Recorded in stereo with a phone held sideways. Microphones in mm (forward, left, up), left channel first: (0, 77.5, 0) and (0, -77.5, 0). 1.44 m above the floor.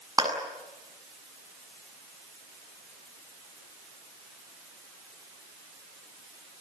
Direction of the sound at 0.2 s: 25° right (ahead or behind).